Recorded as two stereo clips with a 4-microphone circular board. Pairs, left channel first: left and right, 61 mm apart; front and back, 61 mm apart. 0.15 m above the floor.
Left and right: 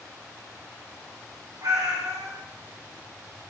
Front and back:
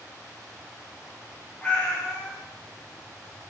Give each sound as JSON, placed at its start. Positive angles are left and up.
{"t": 1.6, "sound": "a cat meowing", "azimuth_deg": -75, "distance_m": 5.5}